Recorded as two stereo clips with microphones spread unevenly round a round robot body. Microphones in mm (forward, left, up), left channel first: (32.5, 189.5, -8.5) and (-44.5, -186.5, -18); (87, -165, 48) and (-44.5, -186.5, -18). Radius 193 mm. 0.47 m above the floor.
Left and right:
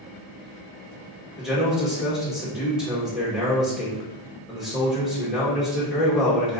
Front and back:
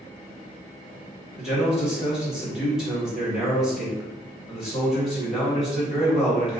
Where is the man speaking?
175° left, 1.0 m.